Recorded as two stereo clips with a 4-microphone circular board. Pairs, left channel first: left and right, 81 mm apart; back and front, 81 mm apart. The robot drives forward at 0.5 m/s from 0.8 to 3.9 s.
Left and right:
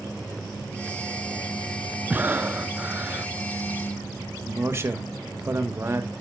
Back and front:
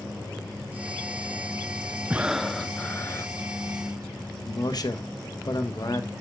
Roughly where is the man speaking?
Behind right.